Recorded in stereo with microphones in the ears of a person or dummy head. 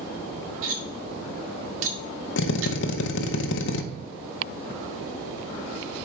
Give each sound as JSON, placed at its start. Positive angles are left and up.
{"t": 0.6, "sound": "cutlery clinking", "side_deg": -70, "distance_m": 1.3}
{"t": 2.4, "sound": "a drill", "side_deg": 65, "distance_m": 0.7}